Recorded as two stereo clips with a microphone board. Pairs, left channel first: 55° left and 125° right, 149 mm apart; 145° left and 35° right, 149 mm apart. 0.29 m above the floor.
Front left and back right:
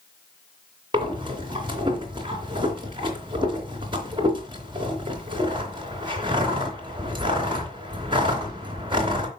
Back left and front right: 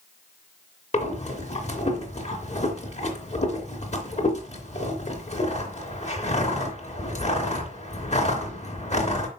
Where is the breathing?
Straight behind, 3 m.